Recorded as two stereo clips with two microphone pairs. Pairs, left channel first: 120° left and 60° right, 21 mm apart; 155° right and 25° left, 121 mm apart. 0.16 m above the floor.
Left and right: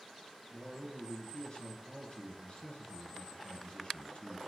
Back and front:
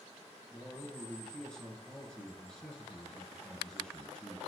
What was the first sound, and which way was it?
A man speaking, 125° left.